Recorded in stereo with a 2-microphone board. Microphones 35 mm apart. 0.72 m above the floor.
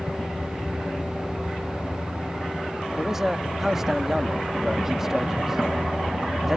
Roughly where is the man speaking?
Centre.